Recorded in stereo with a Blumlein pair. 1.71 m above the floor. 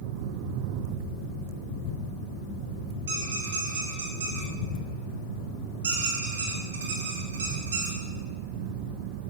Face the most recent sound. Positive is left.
turn(degrees=-65)